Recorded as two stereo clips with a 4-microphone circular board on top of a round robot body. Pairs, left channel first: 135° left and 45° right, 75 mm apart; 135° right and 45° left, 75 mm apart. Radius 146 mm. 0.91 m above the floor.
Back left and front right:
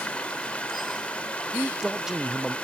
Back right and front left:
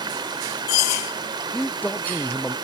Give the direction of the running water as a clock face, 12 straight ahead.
10 o'clock.